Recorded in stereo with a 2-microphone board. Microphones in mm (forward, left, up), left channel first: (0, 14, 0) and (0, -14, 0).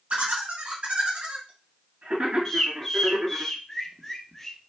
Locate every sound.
0.1 s laughter: 65° right (ahead or behind), 1.4 m
2.5 s a bird: 15° left (ahead or behind), 0.8 m